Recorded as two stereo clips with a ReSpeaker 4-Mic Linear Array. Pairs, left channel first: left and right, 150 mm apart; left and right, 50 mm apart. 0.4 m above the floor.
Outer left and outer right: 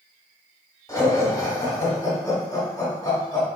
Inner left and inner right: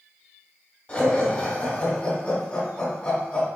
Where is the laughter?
25° left (ahead or behind), 1.3 m.